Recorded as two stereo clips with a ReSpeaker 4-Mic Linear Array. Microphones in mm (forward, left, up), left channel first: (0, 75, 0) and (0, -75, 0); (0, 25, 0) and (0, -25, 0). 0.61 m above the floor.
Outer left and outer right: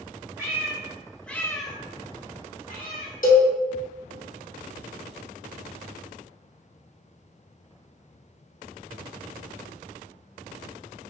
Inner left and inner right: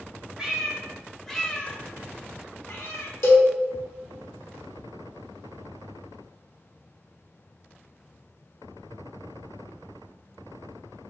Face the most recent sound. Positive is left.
turn(degrees=65)  # may be behind; listen again after turning